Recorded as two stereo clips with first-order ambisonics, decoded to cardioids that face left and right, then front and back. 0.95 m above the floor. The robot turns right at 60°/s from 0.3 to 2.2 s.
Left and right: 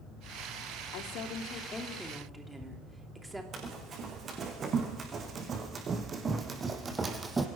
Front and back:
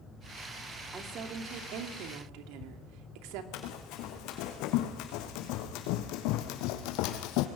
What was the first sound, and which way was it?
A woman speaking, 110° left.